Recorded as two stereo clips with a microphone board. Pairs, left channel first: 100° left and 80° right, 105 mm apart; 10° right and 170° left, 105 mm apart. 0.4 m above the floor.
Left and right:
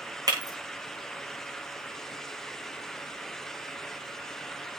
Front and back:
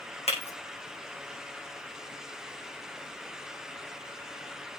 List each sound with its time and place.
0.3 s breaking glass: 25° right, 6 m